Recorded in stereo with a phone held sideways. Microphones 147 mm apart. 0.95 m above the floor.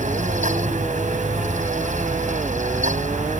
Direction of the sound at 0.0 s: 60° right (ahead or behind).